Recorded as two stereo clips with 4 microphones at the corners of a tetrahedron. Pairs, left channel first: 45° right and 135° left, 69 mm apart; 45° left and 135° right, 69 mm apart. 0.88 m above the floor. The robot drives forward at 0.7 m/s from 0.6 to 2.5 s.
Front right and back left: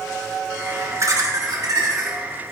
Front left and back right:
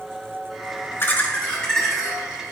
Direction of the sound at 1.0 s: 100° left.